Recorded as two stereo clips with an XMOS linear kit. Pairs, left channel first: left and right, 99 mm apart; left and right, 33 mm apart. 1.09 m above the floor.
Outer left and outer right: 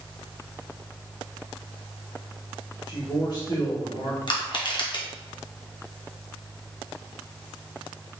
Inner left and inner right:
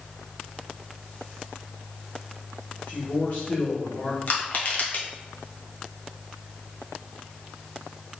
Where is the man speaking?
45° left (ahead or behind), 2.0 m.